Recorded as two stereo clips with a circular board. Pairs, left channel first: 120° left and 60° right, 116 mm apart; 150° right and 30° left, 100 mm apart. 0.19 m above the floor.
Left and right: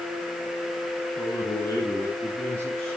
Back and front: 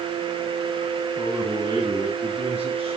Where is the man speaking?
75° left, 2 m; by 3.0 s 40° left, 4 m.